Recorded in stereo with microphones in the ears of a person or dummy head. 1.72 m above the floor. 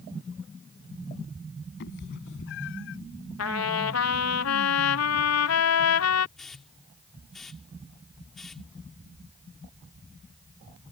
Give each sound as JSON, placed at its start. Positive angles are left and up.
{"t": 1.8, "sound": "a cat meowing", "side_deg": 60}
{"t": 3.4, "sound": "a trumpet", "side_deg": 90}
{"t": 6.4, "sound": "a hiss", "side_deg": 5}